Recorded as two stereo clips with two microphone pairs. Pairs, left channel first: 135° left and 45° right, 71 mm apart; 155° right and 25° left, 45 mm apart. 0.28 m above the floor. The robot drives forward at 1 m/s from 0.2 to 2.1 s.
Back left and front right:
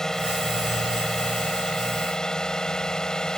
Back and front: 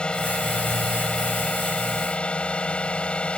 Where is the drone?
155° right; by 3.4 s 160° right.